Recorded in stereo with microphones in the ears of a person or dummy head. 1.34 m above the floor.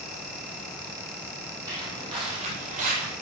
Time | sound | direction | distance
1.7 | footsteps | 20° right (ahead or behind) | 3.5 m